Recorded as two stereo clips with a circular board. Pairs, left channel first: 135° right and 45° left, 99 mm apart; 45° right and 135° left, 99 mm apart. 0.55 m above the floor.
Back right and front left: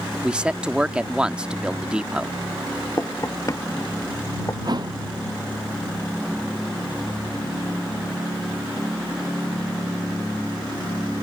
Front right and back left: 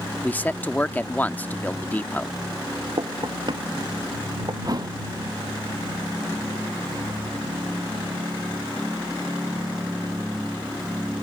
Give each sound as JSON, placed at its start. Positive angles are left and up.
{"t": 0.2, "sound": "a man speaking", "azimuth_deg": -15}
{"t": 3.0, "sound": "knocking", "azimuth_deg": 170}
{"t": 4.7, "sound": "a thud", "azimuth_deg": 90}